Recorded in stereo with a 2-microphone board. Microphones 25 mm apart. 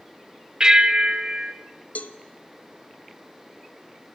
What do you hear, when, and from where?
0.6 s a bell: 35° right (ahead or behind), 1.0 m
1.9 s a cowbell: 70° left (ahead or behind), 1.0 m